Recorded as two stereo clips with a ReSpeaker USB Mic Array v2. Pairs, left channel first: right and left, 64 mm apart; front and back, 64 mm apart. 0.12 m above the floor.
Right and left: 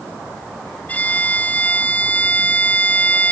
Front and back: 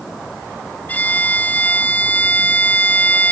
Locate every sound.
0.9 s a violin: 45° right